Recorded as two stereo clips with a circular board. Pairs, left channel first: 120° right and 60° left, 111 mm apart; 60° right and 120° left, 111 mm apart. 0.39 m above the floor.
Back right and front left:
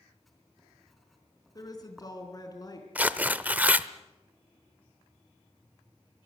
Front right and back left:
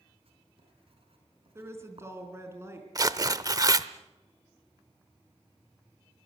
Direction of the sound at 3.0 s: 125° left.